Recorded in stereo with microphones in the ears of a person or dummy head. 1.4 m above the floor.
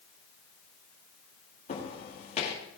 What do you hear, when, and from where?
1.7 s footsteps: 50° left (ahead or behind), 6.5 m